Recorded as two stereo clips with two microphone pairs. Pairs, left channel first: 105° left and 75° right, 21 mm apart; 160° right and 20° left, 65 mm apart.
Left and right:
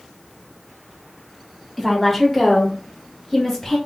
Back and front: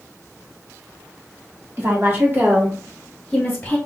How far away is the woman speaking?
About 1.6 m.